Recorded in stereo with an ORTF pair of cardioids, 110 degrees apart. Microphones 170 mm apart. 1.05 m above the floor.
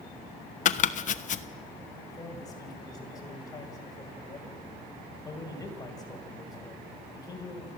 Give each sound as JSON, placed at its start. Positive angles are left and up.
{"t": 0.7, "sound": "chopping", "azimuth_deg": 50, "distance_m": 1.0}
{"t": 2.1, "sound": "a man speaking", "azimuth_deg": 20, "distance_m": 5.5}